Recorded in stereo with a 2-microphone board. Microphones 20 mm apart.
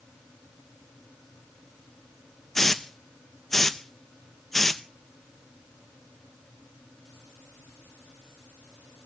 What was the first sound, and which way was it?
A hiss, 15° left (ahead or behind).